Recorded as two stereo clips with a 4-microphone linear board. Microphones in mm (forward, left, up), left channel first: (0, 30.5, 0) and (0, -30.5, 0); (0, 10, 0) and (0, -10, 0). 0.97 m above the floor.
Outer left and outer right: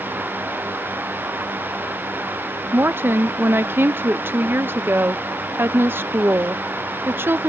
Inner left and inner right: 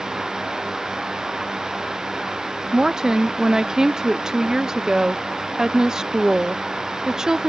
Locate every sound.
2.7 s a woman speaking: 35° right (ahead or behind)